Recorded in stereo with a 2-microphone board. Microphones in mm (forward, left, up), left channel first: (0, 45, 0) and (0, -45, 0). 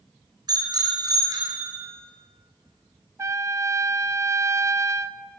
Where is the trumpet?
30° right (ahead or behind), 0.6 m.